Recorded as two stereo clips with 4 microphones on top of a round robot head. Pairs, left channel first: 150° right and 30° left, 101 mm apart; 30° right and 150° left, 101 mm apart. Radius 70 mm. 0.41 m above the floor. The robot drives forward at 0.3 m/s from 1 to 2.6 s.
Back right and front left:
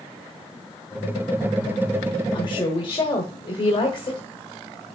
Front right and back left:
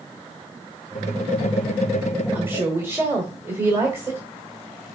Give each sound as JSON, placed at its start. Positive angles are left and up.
{"t": 2.3, "sound": "a woman speaking", "azimuth_deg": -150, "distance_m": 1.3}